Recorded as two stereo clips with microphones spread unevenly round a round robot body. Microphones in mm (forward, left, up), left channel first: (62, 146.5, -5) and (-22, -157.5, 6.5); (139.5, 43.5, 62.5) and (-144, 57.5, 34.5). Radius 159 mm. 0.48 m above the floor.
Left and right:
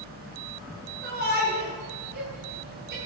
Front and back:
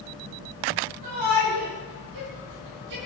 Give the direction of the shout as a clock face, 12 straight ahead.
6 o'clock.